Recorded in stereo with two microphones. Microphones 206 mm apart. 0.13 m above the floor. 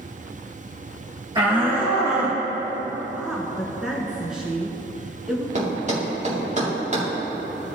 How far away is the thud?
About 3.5 m.